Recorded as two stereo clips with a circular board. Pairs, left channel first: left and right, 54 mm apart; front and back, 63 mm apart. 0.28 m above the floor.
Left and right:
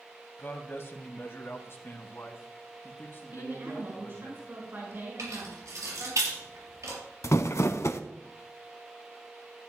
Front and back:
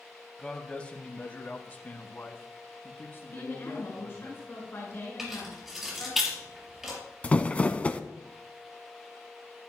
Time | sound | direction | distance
0.4 | a man speaking | 70° left | 1.2 m
3.3 | a woman speaking | 45° right | 4 m
5.2 | keys jangling | 95° right | 4.5 m
7.2 | crumpling | 70° left | 0.7 m